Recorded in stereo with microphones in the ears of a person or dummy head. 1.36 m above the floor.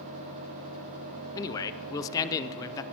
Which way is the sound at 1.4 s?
15° left (ahead or behind).